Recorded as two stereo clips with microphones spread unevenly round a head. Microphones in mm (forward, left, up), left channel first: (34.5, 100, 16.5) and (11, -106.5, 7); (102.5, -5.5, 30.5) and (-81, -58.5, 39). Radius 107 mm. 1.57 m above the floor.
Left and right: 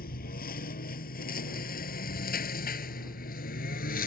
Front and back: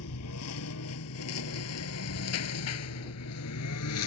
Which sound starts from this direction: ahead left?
A lawn mower, at 0.0 s.